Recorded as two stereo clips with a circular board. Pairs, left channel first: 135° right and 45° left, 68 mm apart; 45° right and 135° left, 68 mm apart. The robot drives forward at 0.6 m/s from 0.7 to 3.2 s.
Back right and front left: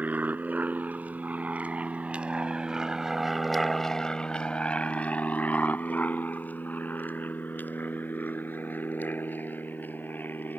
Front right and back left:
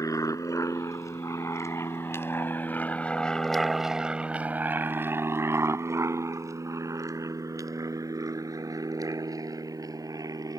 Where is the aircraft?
20° right; by 10.6 s 160° left.